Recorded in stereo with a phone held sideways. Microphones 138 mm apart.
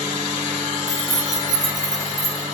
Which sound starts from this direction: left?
Keys jangling, at 0.9 s.